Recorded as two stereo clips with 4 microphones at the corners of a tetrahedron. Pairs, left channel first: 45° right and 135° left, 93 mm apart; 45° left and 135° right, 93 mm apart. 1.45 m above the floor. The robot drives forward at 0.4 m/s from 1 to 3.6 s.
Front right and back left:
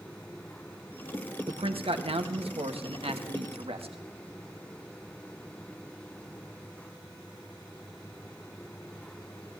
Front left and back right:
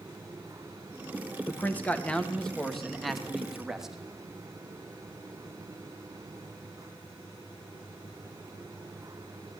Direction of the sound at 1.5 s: 115° left.